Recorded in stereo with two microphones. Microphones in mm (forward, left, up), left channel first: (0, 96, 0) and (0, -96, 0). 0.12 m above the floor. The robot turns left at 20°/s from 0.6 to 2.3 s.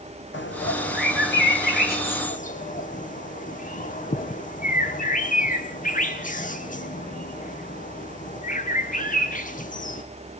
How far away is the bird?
About 1.5 m.